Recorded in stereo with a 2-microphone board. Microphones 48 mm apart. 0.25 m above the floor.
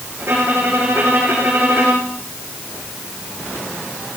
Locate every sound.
0.2 s a violin: 60° right (ahead or behind), 6 m